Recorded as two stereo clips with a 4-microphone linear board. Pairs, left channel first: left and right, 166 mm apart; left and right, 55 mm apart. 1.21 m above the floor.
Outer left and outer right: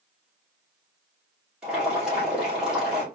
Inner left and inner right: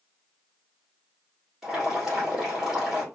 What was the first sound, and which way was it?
Boiling, 5° right (ahead or behind).